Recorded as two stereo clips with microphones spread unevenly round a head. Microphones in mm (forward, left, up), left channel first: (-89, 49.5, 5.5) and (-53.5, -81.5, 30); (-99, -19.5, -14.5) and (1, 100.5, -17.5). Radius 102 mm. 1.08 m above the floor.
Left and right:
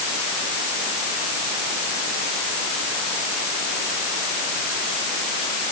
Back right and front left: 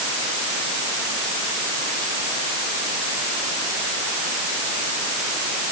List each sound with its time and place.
Only background noise.